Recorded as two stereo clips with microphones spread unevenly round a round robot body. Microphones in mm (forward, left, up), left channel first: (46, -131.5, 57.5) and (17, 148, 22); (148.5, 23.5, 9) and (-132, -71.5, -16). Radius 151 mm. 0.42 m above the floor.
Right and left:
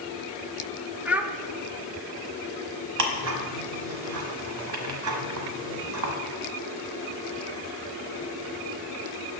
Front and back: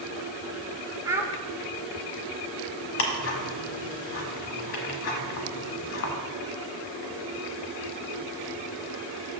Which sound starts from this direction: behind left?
A child speaking, at 1.1 s.